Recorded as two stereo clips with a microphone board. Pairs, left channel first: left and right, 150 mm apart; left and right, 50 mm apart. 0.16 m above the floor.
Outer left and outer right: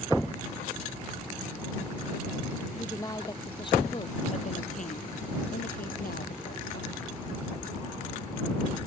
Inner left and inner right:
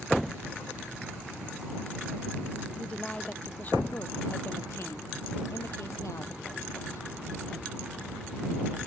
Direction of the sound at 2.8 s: 20° left (ahead or behind).